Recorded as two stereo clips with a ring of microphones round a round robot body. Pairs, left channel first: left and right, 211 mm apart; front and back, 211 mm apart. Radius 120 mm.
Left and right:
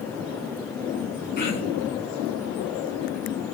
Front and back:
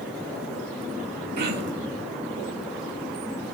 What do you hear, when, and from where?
1.4 s throat clearing: 135° left, 1.7 m